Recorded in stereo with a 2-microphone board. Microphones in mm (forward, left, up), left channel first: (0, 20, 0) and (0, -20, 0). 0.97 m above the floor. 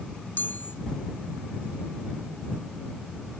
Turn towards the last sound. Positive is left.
turn(degrees=60)  # may be behind; listen again after turning